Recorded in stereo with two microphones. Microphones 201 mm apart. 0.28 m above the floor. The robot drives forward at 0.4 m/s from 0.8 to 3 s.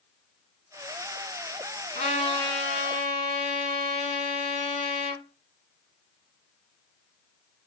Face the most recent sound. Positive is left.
turn(degrees=30)  # may be behind; listen again after turning